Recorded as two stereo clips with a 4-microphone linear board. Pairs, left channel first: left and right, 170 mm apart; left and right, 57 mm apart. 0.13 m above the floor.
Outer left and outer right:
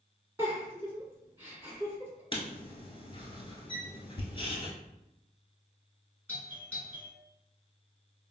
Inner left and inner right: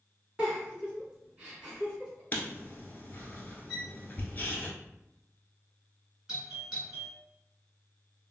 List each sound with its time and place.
0.4 s a giggle: 15° right (ahead or behind), 1.5 m
2.3 s writing: 35° left (ahead or behind), 0.8 m
3.7 s a violin: 5° left (ahead or behind), 1.2 m
6.3 s a doorbell: 15° right (ahead or behind), 2.0 m